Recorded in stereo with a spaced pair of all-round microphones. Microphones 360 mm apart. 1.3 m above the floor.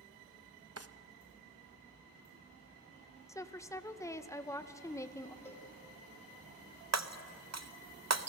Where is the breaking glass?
45° right (ahead or behind), 0.7 m.